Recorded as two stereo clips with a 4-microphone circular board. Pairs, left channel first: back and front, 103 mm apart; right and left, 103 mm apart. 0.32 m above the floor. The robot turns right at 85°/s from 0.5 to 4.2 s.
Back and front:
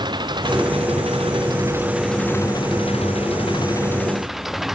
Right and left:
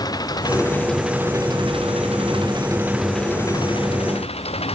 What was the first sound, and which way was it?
An engine running, 40° right.